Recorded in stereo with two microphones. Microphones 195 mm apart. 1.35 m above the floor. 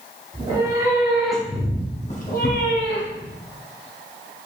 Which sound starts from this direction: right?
A cat meowing, at 0.3 s.